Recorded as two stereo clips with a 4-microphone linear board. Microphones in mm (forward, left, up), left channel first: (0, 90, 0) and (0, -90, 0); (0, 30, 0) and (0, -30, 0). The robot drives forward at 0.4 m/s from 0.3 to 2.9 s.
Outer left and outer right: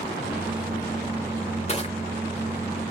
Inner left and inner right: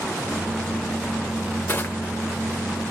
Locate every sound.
1.7 s crushing: 35° left (ahead or behind), 1.3 m